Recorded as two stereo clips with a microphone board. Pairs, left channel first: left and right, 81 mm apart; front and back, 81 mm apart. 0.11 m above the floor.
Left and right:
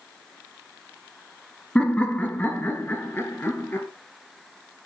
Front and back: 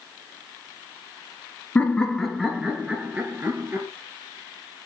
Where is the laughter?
35° left, 1.4 m; by 3.9 s 140° left, 1.9 m.